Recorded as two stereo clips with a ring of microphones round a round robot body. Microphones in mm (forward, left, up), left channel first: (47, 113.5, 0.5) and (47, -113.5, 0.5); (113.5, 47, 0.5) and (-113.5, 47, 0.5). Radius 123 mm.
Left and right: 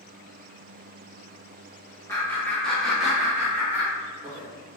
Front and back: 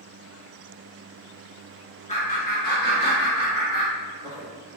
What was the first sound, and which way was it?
Laughter, 25° left.